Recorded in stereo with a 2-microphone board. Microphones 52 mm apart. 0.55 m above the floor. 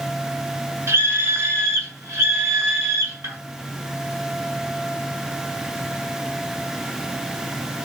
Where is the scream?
60° right (ahead or behind), 2.0 m; by 3.4 s 50° right (ahead or behind), 4 m.